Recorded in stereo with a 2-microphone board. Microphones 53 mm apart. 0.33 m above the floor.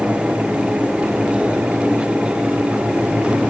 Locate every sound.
Only background noise.